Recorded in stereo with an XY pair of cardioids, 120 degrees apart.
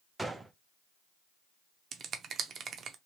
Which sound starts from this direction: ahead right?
A finger snap, at 1.9 s.